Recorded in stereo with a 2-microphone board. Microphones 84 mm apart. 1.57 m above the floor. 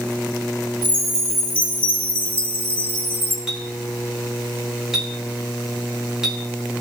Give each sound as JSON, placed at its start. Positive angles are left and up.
{"t": 0.8, "sound": "a chime", "side_deg": 20, "distance_m": 1.5}
{"t": 3.5, "sound": "a clink", "side_deg": -10, "distance_m": 1.5}